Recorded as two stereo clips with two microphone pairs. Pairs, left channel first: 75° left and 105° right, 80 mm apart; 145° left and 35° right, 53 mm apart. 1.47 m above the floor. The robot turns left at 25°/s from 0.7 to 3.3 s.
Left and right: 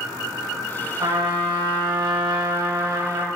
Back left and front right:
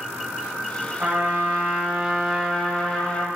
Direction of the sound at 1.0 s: 80° right.